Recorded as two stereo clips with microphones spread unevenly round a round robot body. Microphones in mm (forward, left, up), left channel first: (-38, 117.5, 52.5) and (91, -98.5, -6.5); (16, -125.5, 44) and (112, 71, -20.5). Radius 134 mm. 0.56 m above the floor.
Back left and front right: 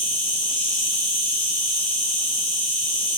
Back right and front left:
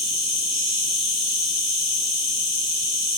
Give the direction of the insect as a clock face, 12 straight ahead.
7 o'clock.